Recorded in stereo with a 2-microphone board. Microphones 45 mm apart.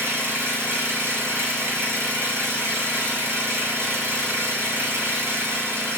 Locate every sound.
0.0 s an engine running: 60° right (ahead or behind), 1.5 m